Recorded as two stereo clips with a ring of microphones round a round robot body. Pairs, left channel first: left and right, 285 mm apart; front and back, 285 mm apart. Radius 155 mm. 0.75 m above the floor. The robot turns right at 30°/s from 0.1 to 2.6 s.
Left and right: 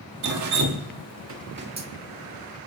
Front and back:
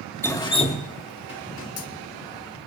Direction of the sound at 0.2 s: 80° right.